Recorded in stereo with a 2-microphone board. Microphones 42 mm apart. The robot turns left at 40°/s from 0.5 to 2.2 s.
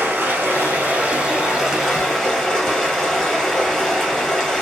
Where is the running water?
120° right, 1.4 m; by 4.6 s 170° left, 1.4 m.